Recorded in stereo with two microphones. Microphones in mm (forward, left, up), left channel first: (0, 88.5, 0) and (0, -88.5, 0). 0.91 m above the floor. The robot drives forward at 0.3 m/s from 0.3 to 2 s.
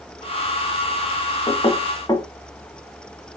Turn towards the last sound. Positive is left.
turn(degrees=25)  # may be behind; listen again after turning